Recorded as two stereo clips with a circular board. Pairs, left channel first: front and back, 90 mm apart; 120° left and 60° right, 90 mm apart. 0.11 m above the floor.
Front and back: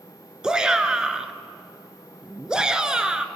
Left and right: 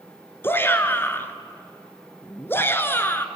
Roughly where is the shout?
Left.